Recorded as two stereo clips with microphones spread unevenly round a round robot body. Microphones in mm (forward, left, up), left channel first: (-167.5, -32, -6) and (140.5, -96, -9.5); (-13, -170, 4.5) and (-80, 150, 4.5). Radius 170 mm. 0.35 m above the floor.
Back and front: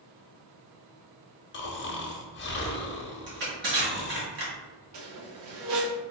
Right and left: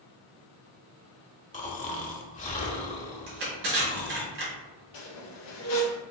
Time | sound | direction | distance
1.5 | snoring | 140° right | 0.9 m
3.3 | crushing | 50° left | 1.9 m
4.9 | a squeak | 45° right | 2 m